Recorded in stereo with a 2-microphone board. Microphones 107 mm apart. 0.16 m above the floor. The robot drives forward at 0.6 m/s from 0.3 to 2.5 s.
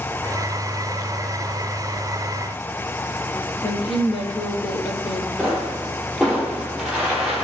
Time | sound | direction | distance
3.6 | a woman speaking | 55° left (ahead or behind) | 4.5 m
5.4 | a pop | centre (ahead or behind) | 5.5 m